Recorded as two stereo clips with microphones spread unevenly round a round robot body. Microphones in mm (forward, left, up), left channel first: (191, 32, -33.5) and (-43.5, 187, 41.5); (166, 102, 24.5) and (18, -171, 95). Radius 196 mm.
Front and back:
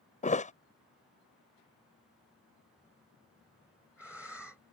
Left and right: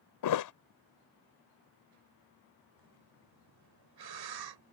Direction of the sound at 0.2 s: 35° left.